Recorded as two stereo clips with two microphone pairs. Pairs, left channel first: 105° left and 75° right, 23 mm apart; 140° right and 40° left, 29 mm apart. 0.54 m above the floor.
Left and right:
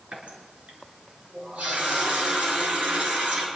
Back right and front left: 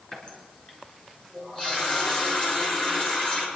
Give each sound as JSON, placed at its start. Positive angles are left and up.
{"t": 0.1, "sound": "a running tap", "azimuth_deg": -85, "distance_m": 5.5}